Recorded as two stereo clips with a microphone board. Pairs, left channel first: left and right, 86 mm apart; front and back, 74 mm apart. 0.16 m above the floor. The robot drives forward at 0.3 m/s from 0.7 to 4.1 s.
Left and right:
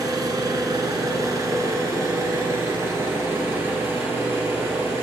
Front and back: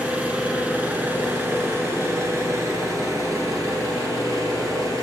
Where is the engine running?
115° right, 1.1 m; by 5.0 s 150° right, 1.7 m.